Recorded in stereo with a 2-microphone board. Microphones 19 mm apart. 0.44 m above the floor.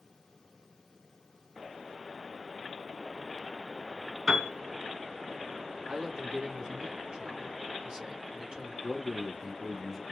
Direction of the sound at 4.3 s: 55° right (ahead or behind).